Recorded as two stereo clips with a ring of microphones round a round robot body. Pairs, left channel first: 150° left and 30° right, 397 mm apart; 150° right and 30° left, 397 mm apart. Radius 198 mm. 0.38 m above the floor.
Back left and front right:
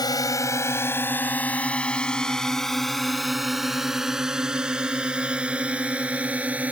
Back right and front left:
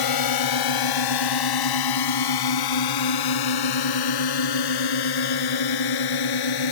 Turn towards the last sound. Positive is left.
turn(degrees=-115)